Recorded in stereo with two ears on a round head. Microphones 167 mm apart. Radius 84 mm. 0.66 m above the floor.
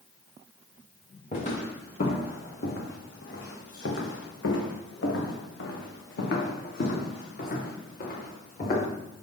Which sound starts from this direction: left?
Footsteps, at 1.3 s.